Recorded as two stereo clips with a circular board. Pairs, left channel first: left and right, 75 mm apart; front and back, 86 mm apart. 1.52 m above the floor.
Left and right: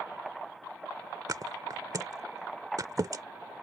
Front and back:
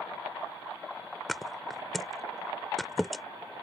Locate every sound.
1.3 s a thud: 90° right